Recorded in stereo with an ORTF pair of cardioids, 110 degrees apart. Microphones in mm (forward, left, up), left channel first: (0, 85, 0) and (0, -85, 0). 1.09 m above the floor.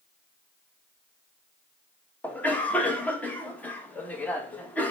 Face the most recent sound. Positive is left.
turn(degrees=10)